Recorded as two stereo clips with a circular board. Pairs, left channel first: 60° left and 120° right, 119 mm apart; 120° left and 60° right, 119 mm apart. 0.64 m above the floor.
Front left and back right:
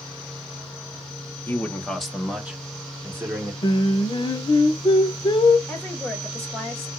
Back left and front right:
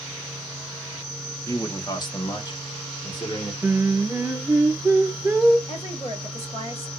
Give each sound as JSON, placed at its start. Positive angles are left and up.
{"t": 1.5, "sound": "a man speaking", "azimuth_deg": 110, "distance_m": 0.8}
{"t": 3.6, "sound": "singing", "azimuth_deg": 15, "distance_m": 0.7}
{"t": 5.7, "sound": "a woman speaking", "azimuth_deg": 140, "distance_m": 2.0}